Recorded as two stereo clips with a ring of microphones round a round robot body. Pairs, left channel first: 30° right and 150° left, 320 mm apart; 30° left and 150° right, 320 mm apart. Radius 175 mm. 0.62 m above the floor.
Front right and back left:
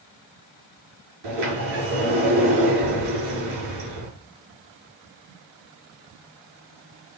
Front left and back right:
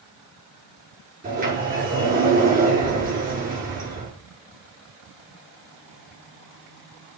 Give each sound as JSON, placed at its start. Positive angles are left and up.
{"t": 1.2, "sound": "a sliding door", "azimuth_deg": 145, "distance_m": 7.5}